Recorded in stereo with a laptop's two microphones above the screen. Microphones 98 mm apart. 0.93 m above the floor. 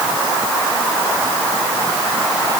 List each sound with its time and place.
Only background noise.